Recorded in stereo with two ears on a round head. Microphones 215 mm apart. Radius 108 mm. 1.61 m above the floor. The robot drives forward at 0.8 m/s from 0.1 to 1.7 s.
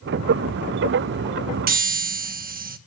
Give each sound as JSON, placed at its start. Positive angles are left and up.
{"t": 1.7, "sound": "a chime", "side_deg": -40, "distance_m": 1.2}